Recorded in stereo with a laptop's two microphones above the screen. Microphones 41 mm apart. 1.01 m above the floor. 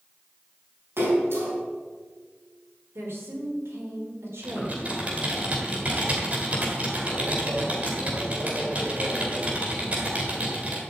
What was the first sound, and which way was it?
A splash, 75° right (ahead or behind).